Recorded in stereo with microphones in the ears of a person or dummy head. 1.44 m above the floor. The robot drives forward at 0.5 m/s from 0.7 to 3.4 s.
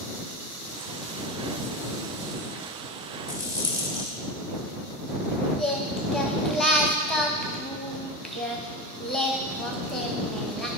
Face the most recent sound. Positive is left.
turn(degrees=0)  # may be behind; listen again after turning